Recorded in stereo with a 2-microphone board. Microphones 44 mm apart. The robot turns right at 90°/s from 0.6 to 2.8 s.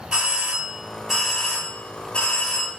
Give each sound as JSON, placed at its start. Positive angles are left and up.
{"t": 0.1, "sound": "a doorbell", "side_deg": -25, "distance_m": 2.0}